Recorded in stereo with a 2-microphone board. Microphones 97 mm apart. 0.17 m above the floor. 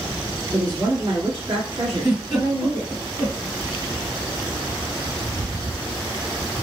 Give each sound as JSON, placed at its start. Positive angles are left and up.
{"t": 0.5, "sound": "a woman speaking", "side_deg": -45, "distance_m": 1.8}
{"t": 1.9, "sound": "a giggle", "side_deg": -50, "distance_m": 2.5}